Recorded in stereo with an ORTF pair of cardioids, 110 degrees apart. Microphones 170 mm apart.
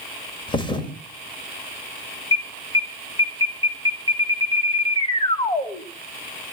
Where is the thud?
30° left, 2 m.